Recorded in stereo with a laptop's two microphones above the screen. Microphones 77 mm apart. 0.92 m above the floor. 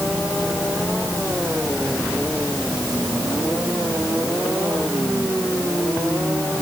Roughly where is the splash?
No splash in this recording.